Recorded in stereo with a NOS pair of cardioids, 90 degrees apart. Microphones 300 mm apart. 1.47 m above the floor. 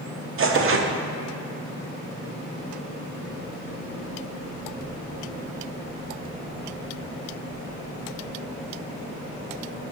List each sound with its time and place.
0.4 s tearing paper: 45° right, 1.0 m